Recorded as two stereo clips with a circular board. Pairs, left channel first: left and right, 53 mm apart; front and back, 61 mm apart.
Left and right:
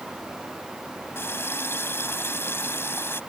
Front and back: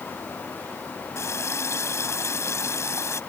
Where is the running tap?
45° left.